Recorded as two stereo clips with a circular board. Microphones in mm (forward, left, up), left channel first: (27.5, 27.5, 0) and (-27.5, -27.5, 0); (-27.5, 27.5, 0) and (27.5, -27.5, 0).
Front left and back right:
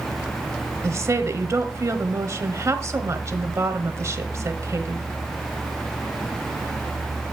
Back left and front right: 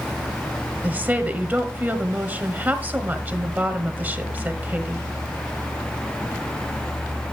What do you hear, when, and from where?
0.8 s a woman speaking: 105° right, 1.2 m